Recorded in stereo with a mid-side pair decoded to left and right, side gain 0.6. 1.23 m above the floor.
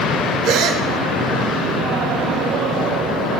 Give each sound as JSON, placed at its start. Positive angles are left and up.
{"t": 0.4, "sound": "a gasp", "azimuth_deg": -70, "distance_m": 4.0}